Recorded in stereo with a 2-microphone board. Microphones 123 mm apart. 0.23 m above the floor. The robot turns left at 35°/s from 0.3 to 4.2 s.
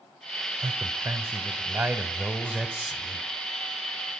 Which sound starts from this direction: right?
A man speaking, at 0.6 s.